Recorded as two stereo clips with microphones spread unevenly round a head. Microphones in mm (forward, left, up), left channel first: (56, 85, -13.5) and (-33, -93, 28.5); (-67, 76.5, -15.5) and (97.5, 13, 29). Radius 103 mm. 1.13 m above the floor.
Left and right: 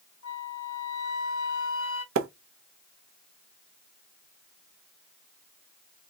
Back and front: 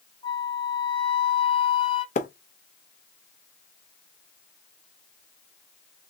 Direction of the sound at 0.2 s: 90° left.